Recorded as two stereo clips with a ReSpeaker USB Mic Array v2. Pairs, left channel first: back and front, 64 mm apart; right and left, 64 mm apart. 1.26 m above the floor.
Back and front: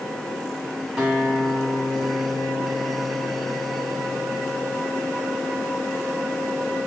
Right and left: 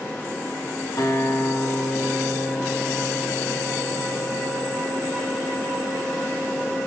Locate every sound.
1.0 s a guitar: 75° right, 3.5 m